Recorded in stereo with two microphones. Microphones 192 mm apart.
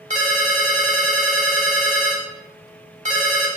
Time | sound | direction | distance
0.1 | a ringtone | 40° right (ahead or behind) | 0.8 m